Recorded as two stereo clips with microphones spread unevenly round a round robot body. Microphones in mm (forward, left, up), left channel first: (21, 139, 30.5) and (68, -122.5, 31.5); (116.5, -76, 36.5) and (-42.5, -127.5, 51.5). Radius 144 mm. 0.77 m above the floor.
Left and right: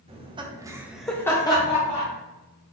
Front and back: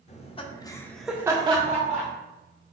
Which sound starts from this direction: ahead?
Laughter, at 0.1 s.